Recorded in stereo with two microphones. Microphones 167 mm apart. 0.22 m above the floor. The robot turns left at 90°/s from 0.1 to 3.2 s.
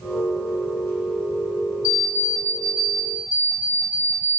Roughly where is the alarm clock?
Centre.